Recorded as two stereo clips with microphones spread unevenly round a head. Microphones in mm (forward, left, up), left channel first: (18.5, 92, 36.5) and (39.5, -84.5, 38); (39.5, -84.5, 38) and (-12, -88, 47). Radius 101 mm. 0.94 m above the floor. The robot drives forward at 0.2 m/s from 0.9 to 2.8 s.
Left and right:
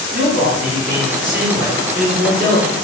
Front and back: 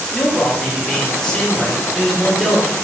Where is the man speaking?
60° right, 1.0 m; by 2.7 s 85° right, 0.9 m.